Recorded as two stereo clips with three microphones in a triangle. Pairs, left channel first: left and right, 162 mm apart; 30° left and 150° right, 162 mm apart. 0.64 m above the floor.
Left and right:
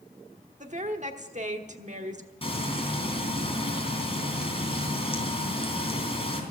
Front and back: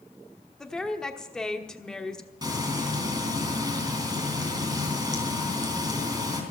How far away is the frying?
About 3 m.